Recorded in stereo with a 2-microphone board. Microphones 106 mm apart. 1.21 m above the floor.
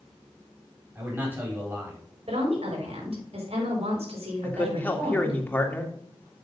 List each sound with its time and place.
0.9 s a man speaking: 20° right (ahead or behind), 4.5 m
2.3 s a woman speaking: 75° right (ahead or behind), 5 m
4.4 s a man speaking: 20° left (ahead or behind), 2.0 m